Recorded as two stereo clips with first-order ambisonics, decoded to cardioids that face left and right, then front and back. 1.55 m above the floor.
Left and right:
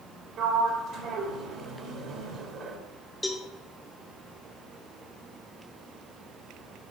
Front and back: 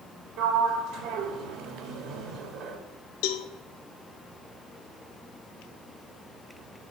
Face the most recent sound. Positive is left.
turn(degrees=5)